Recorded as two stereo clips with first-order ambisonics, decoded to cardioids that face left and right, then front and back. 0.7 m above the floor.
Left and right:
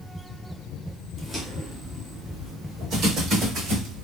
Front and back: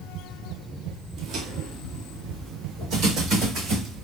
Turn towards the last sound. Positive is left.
turn(degrees=-130)